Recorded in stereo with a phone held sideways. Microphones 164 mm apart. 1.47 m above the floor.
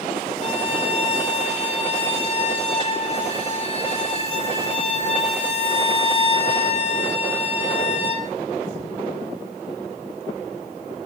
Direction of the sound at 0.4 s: 40° left (ahead or behind).